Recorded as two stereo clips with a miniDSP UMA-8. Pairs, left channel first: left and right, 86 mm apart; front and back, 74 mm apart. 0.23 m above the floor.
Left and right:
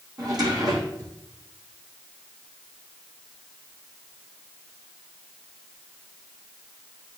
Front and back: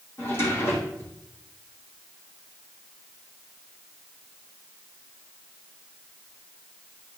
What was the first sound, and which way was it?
A drawer, 55° right.